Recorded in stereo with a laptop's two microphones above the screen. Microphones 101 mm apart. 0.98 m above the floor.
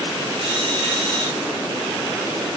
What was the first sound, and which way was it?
A drill, 65° right (ahead or behind).